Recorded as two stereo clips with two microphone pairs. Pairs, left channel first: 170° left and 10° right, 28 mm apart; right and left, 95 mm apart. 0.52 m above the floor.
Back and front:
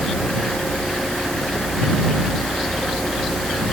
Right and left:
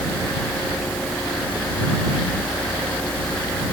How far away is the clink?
I don't hear a clink.